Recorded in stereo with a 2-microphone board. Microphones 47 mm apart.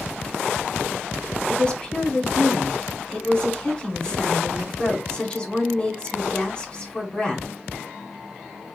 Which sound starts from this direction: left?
A woman speaking, at 1.5 s.